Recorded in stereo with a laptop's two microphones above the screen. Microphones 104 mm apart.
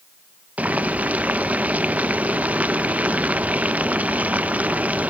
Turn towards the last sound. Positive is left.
turn(degrees=-15)  # may be behind; listen again after turning